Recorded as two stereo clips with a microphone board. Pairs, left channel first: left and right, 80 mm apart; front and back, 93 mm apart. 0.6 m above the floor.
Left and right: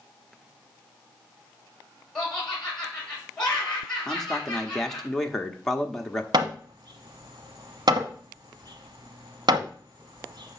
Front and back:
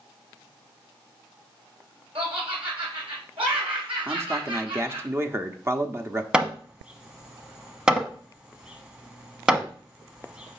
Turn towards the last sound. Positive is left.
turn(degrees=-100)